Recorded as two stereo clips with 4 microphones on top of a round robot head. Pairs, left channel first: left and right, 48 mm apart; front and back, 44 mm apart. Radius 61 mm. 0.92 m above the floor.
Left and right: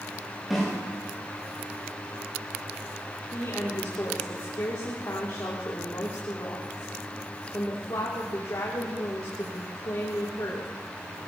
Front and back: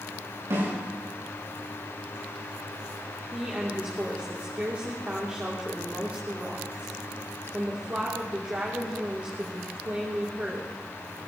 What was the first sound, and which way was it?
A snare drum, straight behind.